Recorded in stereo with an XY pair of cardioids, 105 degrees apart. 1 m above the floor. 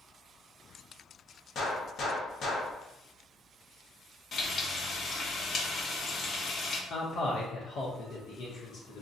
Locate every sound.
1.6 s a gunshot: 60° left, 0.8 m
4.3 s frying: 45° left, 0.8 m
6.9 s a man speaking: 60° left, 0.6 m